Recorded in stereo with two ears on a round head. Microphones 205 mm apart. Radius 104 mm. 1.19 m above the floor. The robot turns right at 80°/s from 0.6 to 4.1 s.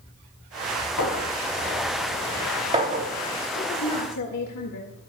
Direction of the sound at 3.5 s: 40° left.